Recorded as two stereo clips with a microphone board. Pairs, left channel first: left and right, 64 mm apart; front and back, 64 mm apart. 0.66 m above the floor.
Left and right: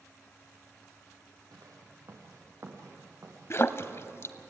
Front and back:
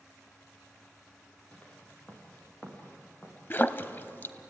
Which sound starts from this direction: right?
Footsteps, at 1.5 s.